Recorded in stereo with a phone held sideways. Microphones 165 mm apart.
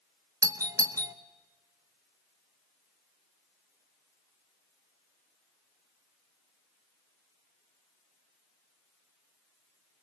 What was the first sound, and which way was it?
A doorbell, 20° right (ahead or behind).